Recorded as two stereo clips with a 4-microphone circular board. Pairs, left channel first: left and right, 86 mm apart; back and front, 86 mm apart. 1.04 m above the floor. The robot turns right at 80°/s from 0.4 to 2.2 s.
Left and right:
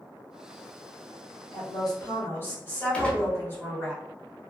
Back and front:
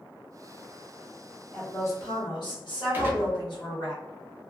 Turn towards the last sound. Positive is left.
turn(degrees=30)